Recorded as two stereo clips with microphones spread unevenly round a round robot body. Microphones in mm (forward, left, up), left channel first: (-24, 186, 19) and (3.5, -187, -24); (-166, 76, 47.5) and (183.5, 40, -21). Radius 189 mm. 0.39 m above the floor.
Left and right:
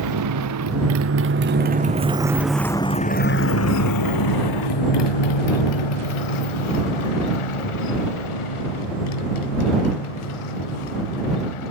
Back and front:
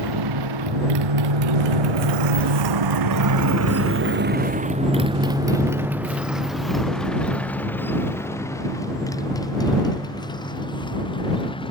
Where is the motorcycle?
40° right; by 11.7 s 100° left.